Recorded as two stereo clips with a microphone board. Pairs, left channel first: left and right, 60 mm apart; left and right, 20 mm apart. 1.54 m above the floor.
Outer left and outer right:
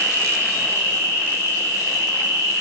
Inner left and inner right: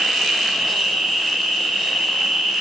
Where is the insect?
75° right (ahead or behind), 5 m.